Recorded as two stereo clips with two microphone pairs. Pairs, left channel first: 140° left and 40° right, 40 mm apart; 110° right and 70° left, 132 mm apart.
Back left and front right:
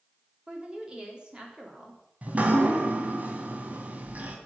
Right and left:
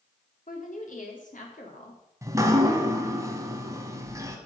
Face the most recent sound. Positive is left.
turn(degrees=5)